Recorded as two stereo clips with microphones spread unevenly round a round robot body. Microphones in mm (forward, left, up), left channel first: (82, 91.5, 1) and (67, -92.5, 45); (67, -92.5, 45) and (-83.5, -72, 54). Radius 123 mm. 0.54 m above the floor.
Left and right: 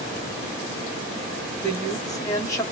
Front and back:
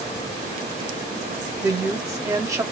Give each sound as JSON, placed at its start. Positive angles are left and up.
{"t": 1.6, "sound": "a woman speaking", "azimuth_deg": 115, "distance_m": 1.5}